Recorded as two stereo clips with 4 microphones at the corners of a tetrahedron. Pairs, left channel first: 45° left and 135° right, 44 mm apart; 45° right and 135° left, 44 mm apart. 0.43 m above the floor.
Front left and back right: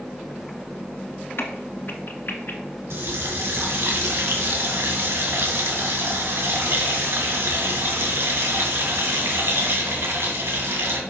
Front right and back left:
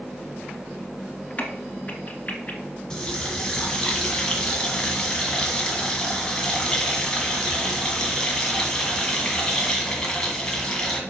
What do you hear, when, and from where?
1.4 s a crack: 10° left, 1.3 m
2.9 s a running tap: 120° right, 1.9 m